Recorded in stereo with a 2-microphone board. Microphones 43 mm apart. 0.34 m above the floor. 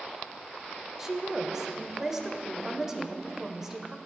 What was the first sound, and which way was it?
A woman speaking, 10° right (ahead or behind).